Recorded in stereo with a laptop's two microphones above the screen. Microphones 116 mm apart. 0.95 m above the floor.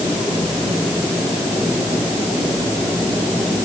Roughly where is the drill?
No drill in this recording.